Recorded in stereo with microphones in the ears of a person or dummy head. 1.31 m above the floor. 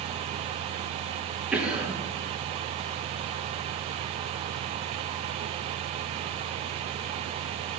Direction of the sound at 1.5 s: 10° right (ahead or behind).